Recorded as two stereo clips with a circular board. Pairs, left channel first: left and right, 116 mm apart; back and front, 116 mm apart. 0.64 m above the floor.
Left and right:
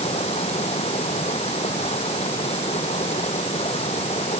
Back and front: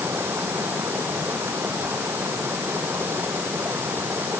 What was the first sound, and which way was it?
Running water, 70° left.